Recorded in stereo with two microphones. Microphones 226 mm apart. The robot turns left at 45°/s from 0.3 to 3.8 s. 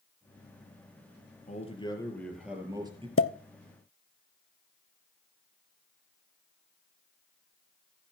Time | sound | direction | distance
1.5 | a man speaking | 40° left | 3 m
3.2 | a pop | 70° left (ahead or behind) | 0.6 m